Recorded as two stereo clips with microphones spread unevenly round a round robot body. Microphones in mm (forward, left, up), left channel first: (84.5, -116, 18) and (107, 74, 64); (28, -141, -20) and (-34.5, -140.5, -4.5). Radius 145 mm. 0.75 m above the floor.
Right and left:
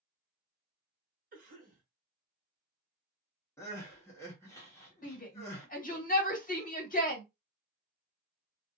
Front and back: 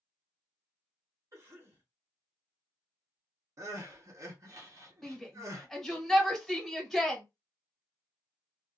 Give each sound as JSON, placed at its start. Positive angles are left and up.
{"t": 1.3, "sound": "a cough", "azimuth_deg": 130, "distance_m": 1.1}
{"t": 3.6, "sound": "crying", "azimuth_deg": -150, "distance_m": 1.1}
{"t": 5.0, "sound": "a shout", "azimuth_deg": -75, "distance_m": 1.8}